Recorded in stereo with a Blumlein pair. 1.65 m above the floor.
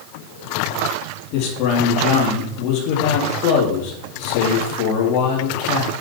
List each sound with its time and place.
1.3 s a man speaking: 45° left, 3.5 m